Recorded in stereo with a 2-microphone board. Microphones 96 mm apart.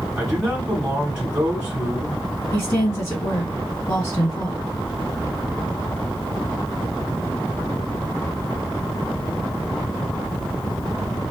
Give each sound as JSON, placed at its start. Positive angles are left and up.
{"t": 0.2, "sound": "a man speaking", "side_deg": -10, "distance_m": 1.2}
{"t": 2.5, "sound": "a woman speaking", "side_deg": 30, "distance_m": 1.9}